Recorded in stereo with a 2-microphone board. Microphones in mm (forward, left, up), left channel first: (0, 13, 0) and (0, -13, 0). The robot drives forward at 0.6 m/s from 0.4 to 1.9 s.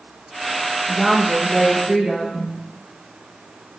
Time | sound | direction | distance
0.9 | a woman speaking | 30° right (ahead or behind) | 1.3 m